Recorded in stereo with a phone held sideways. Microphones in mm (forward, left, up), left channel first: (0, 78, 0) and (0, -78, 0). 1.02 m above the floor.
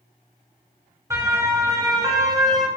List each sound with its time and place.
1.1 s a siren: 20° right (ahead or behind), 6 m; by 2.7 s 25° right (ahead or behind), 5 m